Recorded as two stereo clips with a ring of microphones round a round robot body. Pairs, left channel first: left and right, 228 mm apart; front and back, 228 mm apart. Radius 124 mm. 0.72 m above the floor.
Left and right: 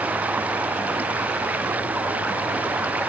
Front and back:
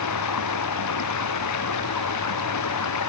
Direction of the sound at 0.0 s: 5° right.